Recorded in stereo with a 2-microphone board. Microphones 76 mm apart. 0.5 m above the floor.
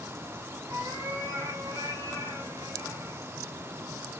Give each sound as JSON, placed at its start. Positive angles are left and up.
{"t": 0.7, "sound": "a cat meowing", "side_deg": -65, "distance_m": 1.8}